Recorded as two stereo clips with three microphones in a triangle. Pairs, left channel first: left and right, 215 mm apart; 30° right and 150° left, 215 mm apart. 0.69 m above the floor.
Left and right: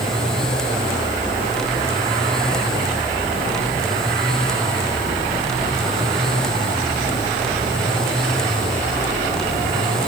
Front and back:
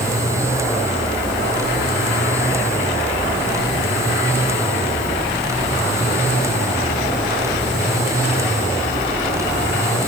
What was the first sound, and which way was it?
Only background noise.